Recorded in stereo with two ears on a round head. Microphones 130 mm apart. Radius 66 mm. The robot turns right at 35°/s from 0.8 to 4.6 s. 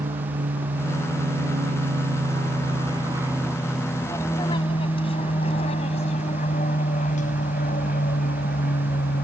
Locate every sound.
0.0 s an aircraft: 60° right (ahead or behind); by 9.2 s 65° left (ahead or behind)